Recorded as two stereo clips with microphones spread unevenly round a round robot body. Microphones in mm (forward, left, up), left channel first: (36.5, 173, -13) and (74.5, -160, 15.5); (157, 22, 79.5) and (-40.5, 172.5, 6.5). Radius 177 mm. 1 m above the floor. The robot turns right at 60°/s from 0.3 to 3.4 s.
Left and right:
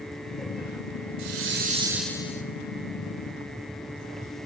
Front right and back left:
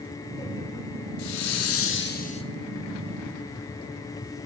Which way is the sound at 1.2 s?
45° right.